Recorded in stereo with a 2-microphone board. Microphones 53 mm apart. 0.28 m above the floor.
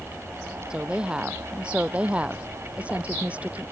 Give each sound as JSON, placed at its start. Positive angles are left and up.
{"t": 0.7, "sound": "a woman speaking", "side_deg": -15}